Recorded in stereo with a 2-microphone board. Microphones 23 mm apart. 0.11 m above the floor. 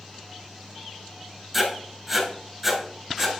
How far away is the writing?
About 1.7 m.